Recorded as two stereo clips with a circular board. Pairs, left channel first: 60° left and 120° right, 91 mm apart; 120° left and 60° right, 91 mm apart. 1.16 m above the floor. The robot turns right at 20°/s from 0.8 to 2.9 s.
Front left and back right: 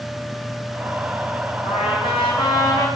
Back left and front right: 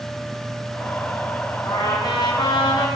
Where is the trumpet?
75° left, 5 m; by 2.9 s 95° left, 5 m.